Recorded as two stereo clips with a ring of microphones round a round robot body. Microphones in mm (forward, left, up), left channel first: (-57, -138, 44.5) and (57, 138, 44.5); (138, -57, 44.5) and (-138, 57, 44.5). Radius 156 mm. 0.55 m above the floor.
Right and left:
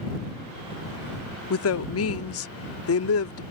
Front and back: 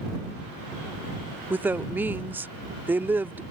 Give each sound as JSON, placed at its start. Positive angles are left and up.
{"t": 1.5, "sound": "a woman speaking", "azimuth_deg": -120}